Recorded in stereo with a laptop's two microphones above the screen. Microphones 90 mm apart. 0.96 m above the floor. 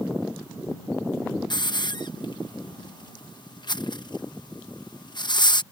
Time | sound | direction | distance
1.5 | a hiss | 55° left (ahead or behind) | ?